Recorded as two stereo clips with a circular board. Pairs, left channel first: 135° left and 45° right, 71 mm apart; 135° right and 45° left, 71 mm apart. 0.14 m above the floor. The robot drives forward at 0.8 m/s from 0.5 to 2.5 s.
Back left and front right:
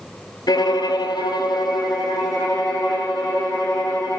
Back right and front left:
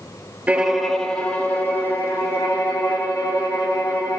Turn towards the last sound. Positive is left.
turn(degrees=165)